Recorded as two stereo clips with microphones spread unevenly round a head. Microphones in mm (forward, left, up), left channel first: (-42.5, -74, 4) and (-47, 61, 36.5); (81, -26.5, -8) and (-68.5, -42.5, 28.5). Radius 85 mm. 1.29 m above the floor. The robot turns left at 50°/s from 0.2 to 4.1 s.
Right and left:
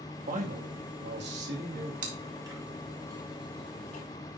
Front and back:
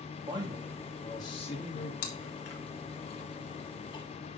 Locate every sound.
0.3 s a man speaking: 120° left, 2 m; by 1.9 s 40° left, 2 m
2.0 s chewing: 45° left, 1.6 m; by 4.0 s 55° right, 1.6 m